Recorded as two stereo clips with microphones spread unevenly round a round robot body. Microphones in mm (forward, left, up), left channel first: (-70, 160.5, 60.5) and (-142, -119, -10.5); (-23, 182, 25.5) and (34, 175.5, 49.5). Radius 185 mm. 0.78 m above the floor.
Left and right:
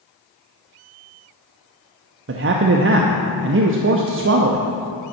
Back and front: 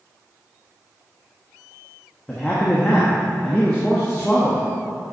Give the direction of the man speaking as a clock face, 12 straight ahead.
4 o'clock.